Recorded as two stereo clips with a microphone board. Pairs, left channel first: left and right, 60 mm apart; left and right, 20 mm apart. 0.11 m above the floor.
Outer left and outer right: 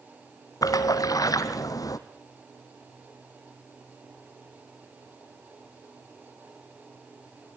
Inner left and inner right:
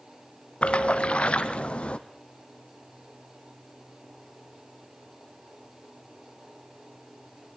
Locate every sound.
0.6 s a splash: 80° left, 0.9 m